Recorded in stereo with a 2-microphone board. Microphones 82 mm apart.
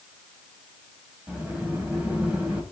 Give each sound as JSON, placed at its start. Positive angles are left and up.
{"t": 1.3, "sound": "a sliding door", "side_deg": -15, "distance_m": 4.5}